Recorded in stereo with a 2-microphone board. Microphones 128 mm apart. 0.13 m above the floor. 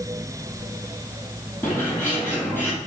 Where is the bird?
15° left (ahead or behind), 4.5 m.